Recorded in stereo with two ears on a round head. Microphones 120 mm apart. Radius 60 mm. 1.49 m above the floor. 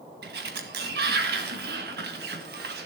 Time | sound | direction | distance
0.2 | a sliding door | 80° right | 1.8 m